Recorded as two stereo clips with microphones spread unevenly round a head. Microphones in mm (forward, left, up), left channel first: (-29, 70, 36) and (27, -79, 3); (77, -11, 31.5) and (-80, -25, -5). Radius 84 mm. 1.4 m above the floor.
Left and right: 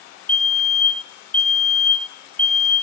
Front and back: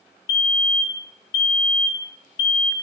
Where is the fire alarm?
25° left, 1.6 m.